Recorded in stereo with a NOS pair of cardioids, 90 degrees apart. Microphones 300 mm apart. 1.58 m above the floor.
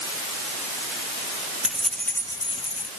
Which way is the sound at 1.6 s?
5° right.